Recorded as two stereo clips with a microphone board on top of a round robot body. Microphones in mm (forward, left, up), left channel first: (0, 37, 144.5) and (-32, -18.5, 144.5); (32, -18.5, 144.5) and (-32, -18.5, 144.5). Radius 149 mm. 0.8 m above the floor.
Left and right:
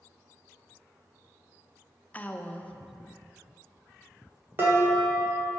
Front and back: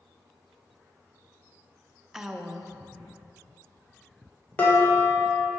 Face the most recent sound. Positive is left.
turn(degrees=-70)